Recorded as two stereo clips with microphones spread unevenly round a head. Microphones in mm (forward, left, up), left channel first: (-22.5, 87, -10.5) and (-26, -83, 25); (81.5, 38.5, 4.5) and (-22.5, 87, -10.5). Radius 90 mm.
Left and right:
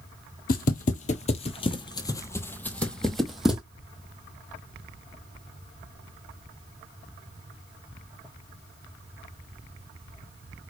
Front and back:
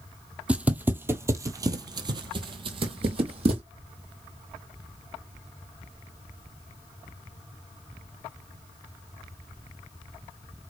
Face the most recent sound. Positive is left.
turn(degrees=-165)